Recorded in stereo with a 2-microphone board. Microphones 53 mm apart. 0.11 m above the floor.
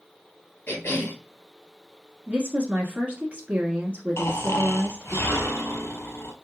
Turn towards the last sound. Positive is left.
turn(degrees=55)  # may be behind; listen again after turning